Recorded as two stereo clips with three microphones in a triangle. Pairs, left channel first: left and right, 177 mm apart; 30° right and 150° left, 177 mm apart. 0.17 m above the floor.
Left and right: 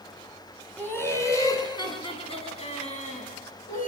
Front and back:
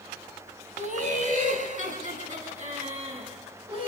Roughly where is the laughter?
Behind.